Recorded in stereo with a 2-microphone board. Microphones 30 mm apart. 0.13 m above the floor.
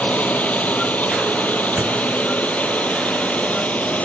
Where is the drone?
55° left (ahead or behind).